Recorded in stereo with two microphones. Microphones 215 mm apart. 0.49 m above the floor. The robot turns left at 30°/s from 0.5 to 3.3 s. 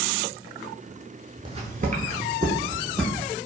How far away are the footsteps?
About 0.5 m.